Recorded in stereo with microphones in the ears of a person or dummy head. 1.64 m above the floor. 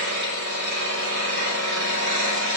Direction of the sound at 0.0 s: 70° right (ahead or behind).